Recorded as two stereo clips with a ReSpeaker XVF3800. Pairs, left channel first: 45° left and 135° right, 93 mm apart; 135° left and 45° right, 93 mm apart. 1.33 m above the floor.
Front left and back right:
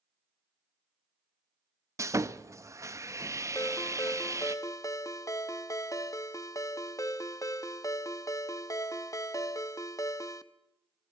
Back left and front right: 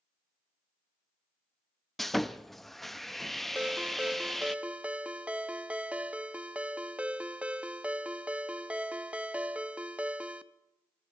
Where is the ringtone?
25° left, 0.9 m.